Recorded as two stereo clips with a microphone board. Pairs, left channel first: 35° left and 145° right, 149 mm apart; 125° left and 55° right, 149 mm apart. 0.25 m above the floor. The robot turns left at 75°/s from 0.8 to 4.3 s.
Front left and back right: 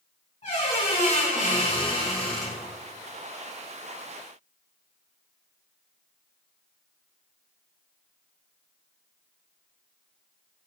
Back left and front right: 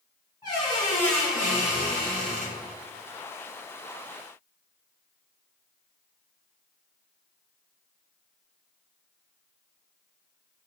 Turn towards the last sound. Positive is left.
turn(degrees=160)